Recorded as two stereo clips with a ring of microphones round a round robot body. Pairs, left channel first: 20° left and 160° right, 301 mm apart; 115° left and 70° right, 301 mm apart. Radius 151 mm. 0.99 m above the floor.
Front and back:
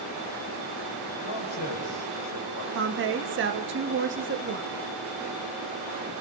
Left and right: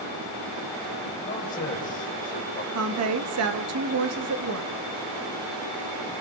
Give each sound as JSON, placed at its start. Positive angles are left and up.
{"t": 1.2, "sound": "a man speaking", "azimuth_deg": 50, "distance_m": 4.0}
{"t": 2.7, "sound": "a woman speaking", "azimuth_deg": -105, "distance_m": 1.5}